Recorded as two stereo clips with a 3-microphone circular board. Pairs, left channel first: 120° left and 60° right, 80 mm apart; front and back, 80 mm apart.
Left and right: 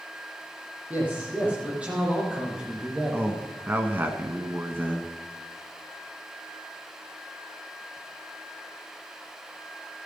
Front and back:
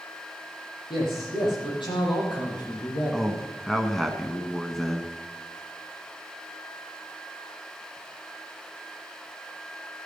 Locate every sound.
0.9 s a man speaking: 10° left, 6 m; by 3.2 s 25° left, 4.5 m
3.1 s a man speaking: 80° right, 1.4 m